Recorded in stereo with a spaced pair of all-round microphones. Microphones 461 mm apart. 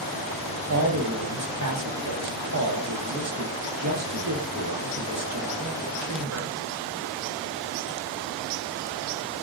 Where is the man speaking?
35° right (ahead or behind), 0.7 m.